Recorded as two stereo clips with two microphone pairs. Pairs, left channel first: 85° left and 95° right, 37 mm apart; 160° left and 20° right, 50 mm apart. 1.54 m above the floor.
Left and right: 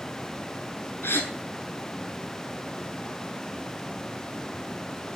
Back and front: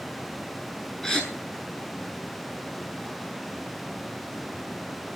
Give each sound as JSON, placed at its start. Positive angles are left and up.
{"t": 1.0, "sound": "a gasp", "azimuth_deg": 80, "distance_m": 5.5}